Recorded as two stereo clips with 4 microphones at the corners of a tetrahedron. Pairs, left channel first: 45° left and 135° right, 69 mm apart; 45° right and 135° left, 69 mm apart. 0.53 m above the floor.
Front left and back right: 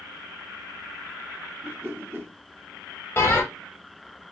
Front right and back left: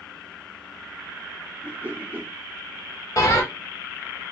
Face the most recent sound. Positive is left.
turn(degrees=-10)